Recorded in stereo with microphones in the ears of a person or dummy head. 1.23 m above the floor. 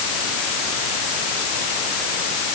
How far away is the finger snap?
No finger snap in this recording.